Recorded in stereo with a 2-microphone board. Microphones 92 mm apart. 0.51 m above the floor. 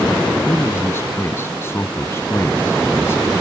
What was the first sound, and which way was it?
A man speaking, 25° left (ahead or behind).